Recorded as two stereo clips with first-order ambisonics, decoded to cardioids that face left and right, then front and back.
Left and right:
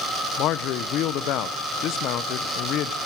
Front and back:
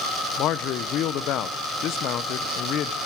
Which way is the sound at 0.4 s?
45° left.